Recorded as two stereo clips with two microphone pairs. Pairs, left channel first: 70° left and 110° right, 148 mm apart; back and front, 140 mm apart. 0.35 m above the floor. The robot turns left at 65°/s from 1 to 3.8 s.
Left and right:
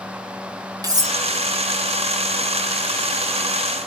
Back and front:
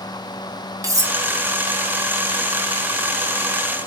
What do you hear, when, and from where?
0.8 s cutlery clinking: 60° right, 0.8 m; by 1.2 s 70° right, 0.8 m